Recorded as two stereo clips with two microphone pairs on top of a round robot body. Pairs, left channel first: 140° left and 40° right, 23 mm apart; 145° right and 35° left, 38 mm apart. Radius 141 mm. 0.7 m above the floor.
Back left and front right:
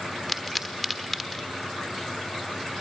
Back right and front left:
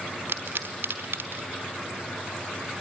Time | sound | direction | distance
0.3 | a pop | 60° left | 1.2 m